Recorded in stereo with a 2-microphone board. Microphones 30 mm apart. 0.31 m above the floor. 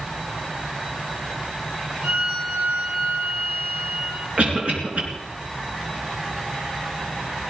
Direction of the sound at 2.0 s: 80° right.